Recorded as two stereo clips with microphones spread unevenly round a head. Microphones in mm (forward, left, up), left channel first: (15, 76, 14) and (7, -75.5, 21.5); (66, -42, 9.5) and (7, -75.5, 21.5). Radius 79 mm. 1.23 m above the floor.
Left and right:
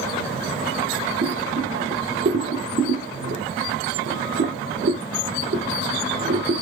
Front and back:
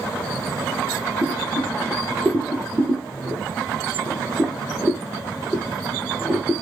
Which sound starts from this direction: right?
Boiling, at 1.2 s.